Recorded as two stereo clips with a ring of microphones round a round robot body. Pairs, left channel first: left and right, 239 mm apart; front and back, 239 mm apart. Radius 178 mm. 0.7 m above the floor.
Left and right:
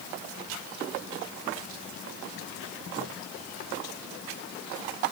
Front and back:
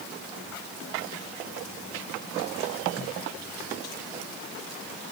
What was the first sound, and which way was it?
Only background noise.